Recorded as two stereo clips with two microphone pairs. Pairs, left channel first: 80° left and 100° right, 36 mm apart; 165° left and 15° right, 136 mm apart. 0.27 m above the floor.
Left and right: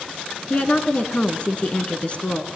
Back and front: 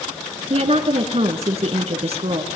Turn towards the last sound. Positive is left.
turn(degrees=25)